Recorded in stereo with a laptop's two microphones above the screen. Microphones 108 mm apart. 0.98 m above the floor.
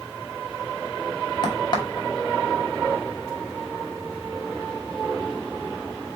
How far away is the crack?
About 1.0 m.